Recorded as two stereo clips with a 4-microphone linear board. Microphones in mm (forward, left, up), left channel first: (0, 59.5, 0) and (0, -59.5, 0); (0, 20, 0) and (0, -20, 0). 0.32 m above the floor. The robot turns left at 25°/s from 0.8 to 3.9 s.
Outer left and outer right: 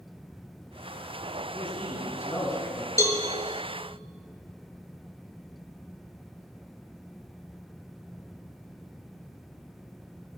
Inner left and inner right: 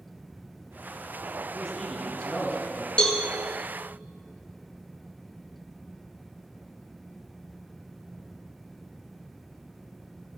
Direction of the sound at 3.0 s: 30° left (ahead or behind).